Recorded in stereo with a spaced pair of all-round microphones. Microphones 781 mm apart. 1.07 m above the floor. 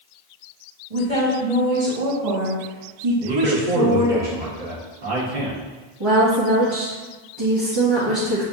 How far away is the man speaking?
About 1.3 m.